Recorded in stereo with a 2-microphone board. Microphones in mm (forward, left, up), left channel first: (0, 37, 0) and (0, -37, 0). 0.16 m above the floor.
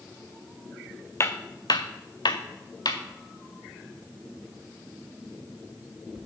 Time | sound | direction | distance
1.2 | footsteps | 35° left (ahead or behind) | 0.6 m